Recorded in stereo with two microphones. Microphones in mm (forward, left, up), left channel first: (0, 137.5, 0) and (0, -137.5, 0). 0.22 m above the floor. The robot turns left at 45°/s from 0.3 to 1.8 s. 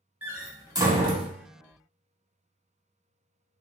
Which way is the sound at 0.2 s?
5° right (ahead or behind).